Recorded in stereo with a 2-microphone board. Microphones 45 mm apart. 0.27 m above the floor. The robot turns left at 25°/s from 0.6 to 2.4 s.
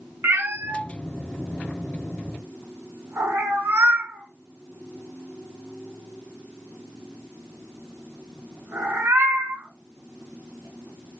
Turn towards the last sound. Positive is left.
turn(degrees=-75)  # may be behind; listen again after turning